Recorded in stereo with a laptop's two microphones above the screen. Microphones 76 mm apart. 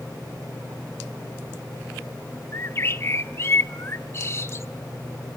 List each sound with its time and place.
2.5 s a bird: 35° left (ahead or behind), 0.6 m